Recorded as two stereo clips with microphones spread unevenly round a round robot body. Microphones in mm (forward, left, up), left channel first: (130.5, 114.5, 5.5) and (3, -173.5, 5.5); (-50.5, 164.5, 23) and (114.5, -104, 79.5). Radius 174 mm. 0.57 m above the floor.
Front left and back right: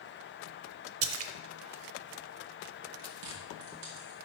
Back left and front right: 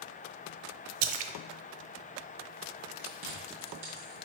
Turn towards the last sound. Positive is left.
turn(degrees=-125)